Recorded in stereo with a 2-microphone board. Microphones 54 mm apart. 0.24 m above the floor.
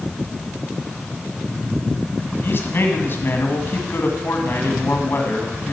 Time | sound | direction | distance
2.4 | a man speaking | 45° left (ahead or behind) | 1.8 m